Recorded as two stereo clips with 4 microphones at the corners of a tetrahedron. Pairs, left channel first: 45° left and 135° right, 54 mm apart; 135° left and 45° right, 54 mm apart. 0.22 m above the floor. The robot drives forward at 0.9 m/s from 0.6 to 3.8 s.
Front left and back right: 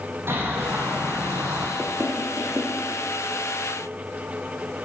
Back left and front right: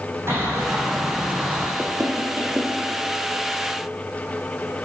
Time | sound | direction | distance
0.3 | a bird | 90° right | 4.5 m
1.8 | knocking | 85° right | 4.5 m